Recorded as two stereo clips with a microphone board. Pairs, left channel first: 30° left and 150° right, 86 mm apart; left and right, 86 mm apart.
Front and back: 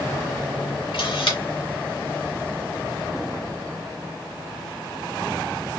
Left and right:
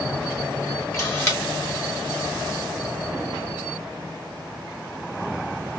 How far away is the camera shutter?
About 2 m.